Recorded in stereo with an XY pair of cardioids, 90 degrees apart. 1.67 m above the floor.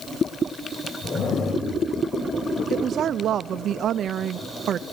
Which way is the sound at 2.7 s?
65° right.